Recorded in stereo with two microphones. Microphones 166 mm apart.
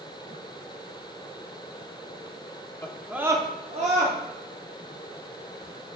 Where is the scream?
15° left (ahead or behind), 0.6 m; by 4.2 s 50° right (ahead or behind), 1.0 m.